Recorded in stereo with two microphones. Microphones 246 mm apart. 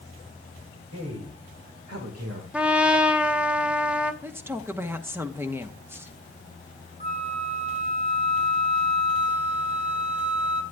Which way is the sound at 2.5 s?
5° right (ahead or behind).